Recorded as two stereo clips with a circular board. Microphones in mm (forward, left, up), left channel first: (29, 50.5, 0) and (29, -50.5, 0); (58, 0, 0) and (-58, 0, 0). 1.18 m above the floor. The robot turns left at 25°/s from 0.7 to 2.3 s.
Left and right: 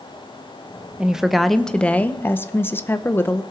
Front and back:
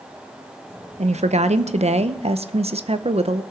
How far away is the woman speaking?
About 0.6 m.